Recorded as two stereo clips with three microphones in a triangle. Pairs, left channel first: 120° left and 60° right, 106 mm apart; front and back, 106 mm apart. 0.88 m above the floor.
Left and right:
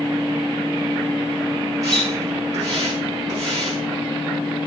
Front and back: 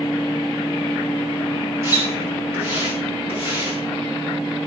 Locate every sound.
1.8 s a splash: 115° right, 6 m